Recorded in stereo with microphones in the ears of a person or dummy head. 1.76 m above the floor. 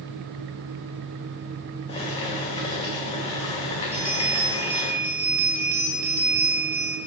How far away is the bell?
About 1.3 m.